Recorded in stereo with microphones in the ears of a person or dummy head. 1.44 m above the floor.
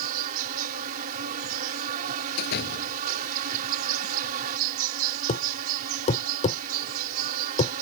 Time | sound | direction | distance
0.0 | an insect | 50° right (ahead or behind) | ?
2.4 | a door slam | 55° left (ahead or behind) | ?
5.3 | a thud | 35° left (ahead or behind) | ?